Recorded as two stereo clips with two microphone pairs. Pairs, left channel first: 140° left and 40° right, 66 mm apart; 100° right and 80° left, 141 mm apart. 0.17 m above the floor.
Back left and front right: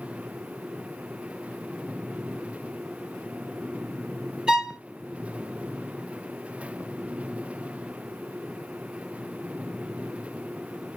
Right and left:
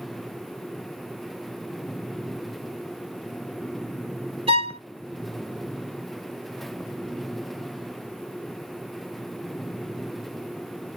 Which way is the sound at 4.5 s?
35° left.